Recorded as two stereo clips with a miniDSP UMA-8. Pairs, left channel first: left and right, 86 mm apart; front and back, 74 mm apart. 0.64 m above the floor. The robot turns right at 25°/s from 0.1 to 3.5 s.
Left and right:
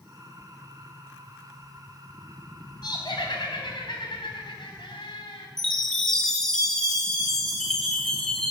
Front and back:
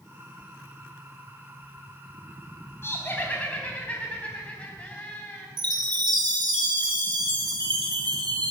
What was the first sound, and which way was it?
Laughter, 55° left.